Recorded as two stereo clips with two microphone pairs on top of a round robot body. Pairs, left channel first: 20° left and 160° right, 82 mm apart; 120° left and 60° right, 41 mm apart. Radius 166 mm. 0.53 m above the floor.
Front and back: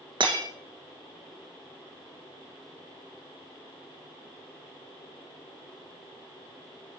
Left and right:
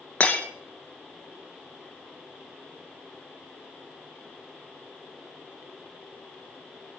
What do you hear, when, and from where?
0.2 s breaking glass: straight behind, 2 m